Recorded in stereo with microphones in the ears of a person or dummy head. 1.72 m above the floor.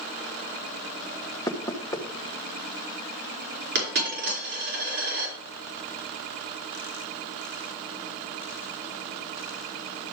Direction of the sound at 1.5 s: 15° left (ahead or behind).